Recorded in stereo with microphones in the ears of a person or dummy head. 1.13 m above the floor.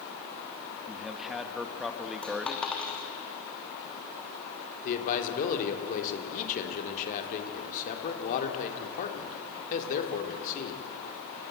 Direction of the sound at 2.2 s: 5° left (ahead or behind).